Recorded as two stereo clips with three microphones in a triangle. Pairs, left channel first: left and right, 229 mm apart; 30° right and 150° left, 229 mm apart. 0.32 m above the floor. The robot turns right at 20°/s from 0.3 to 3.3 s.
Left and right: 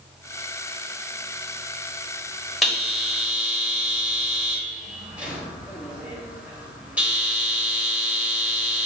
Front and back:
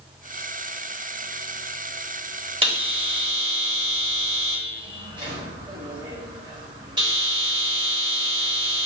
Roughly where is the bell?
Behind.